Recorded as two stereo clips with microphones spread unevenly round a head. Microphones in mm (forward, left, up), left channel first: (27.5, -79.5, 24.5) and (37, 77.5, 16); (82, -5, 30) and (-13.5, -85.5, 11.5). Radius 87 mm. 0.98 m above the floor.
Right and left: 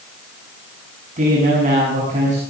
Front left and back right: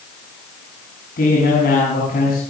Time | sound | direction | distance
1.2 | a man speaking | 45° left | 7.5 m